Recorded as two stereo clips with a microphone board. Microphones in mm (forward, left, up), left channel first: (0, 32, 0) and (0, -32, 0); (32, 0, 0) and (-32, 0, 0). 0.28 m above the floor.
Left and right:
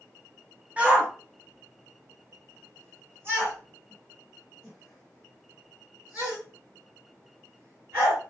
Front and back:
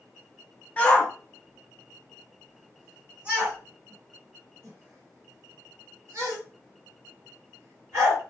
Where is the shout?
45° right, 1.2 m; by 8.2 s 140° right, 4 m.